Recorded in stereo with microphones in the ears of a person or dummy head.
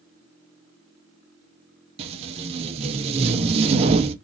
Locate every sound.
2.0 s tape being pulled: 30° right (ahead or behind), 0.6 m